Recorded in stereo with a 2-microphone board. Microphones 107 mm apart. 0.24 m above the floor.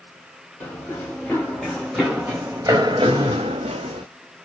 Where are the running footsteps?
20° left (ahead or behind), 1.4 m; by 4.0 s 80° right, 0.9 m.